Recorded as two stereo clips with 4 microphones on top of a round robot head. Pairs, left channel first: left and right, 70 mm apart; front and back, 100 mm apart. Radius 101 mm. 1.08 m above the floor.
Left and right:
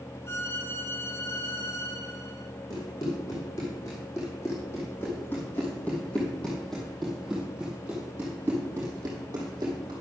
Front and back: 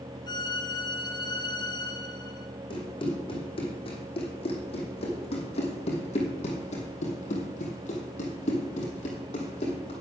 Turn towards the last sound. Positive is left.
turn(degrees=-40)